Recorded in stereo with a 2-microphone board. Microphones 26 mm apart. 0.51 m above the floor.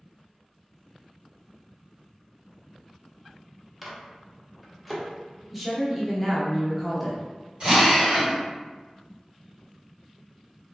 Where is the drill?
50° right (ahead or behind), 1.5 m.